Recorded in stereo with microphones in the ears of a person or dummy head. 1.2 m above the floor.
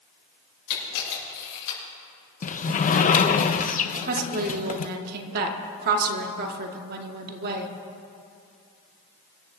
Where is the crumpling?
I don't hear crumpling.